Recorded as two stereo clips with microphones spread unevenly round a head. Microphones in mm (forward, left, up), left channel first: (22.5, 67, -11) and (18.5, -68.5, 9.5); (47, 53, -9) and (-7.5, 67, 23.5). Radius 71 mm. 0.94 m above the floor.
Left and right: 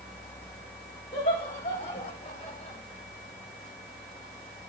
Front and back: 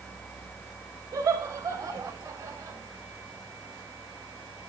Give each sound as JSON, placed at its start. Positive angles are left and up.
{"t": 1.1, "sound": "laughter", "azimuth_deg": 135, "distance_m": 4.5}